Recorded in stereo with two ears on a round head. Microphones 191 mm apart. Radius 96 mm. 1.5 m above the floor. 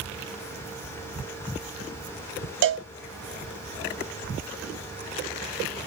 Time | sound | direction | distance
2.6 | a cowbell | 60° right (ahead or behind) | 0.7 m